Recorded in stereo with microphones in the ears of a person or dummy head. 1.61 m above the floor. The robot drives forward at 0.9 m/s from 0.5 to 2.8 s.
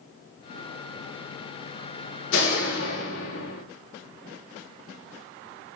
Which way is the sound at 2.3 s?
80° left.